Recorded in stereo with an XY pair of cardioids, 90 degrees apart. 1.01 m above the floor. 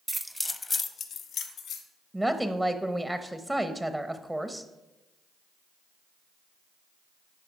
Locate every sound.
0.1 s keys jangling: 20° right, 0.8 m; by 1.8 s 80° left, 1.7 m
2.1 s a woman speaking: 15° right, 0.7 m